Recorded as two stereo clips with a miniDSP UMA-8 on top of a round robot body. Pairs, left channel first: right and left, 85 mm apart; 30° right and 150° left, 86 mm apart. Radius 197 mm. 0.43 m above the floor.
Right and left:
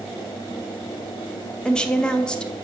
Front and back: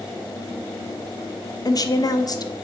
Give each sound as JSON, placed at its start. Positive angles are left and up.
{"t": 1.6, "sound": "a woman speaking", "azimuth_deg": -15, "distance_m": 1.3}